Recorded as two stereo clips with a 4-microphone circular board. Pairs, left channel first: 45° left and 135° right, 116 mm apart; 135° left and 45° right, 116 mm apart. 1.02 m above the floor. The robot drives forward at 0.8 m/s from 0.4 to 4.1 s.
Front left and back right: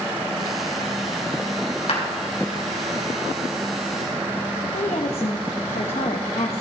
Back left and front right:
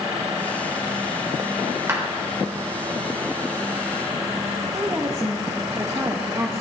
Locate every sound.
1.9 s a clap: 20° left, 3 m; by 2.0 s 25° left, 3 m
4.7 s a woman speaking: 20° left, 0.9 m